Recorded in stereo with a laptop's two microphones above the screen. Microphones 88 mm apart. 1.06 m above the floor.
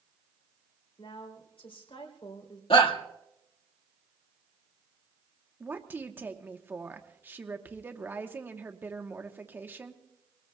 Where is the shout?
75° left (ahead or behind), 1.7 m.